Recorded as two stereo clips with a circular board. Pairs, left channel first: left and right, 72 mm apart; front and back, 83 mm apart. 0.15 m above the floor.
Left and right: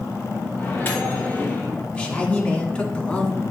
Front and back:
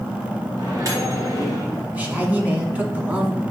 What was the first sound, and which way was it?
A microwave, 145° left.